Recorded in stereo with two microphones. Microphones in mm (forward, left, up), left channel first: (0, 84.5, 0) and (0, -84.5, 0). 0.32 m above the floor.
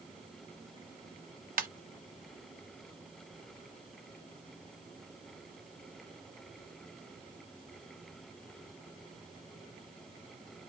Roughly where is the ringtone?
Right.